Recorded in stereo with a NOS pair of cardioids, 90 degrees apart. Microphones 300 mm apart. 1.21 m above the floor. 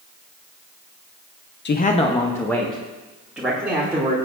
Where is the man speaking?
35° left, 0.8 m; by 4.1 s 10° right, 3 m.